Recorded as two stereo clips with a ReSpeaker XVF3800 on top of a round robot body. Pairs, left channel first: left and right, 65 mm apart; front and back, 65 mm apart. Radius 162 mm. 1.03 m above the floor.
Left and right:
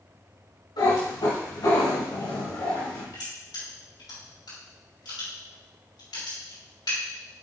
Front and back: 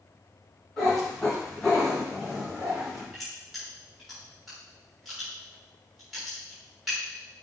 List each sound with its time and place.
0.8 s a cat meowing: 80° left, 3.5 m; by 3.0 s 85° left, 2.5 m
3.1 s crushing: 90° left, 3.5 m